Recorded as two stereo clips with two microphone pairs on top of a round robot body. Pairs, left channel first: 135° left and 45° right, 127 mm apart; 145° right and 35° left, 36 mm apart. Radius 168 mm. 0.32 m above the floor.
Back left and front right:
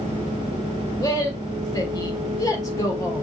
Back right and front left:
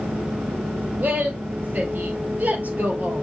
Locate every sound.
1.0 s a woman speaking: 75° left, 3 m